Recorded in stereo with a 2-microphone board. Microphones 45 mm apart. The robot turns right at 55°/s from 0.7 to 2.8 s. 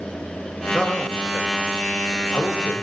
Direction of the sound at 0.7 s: 15° left (ahead or behind).